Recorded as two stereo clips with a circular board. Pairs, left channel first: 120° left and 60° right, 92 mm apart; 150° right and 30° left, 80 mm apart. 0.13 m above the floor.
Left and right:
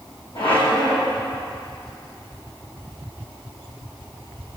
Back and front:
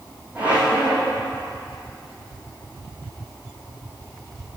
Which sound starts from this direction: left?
A squeak, at 0.3 s.